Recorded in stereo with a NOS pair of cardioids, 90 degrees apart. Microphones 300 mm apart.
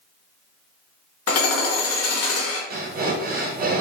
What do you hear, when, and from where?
1.3 s hammering: 55° left, 0.8 m
2.7 s breathing: 30° right, 0.6 m